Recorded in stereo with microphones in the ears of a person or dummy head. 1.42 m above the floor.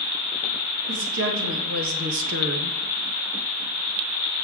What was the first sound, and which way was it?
A woman speaking, 70° right (ahead or behind).